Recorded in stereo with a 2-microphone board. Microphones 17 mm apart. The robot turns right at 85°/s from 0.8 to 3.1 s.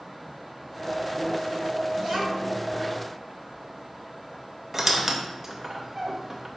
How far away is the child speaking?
About 2.5 m.